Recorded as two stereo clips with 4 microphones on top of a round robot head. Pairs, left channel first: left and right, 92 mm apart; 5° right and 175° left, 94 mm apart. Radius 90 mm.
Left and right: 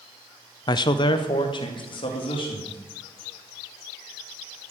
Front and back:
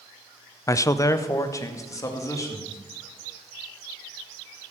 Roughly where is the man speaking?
Ahead left.